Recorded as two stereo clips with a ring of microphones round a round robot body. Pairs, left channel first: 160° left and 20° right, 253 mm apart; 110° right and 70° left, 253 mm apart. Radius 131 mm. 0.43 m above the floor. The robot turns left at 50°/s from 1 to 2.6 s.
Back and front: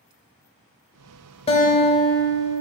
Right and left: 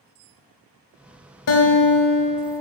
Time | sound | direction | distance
1.5 | a guitar | 135° right | 0.9 m